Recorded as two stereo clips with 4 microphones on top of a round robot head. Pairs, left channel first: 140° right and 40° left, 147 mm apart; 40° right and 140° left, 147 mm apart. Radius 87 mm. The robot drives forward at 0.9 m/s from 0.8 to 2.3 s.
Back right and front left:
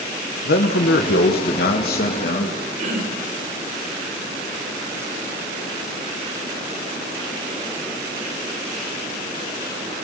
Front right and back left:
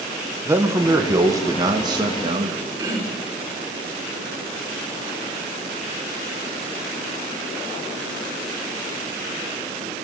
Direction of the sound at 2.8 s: 75° left.